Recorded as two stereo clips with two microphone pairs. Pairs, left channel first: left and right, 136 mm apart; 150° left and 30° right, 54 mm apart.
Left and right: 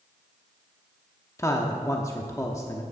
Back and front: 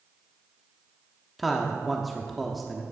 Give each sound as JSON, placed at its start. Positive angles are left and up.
{"t": 1.4, "sound": "a man speaking", "azimuth_deg": 60, "distance_m": 0.9}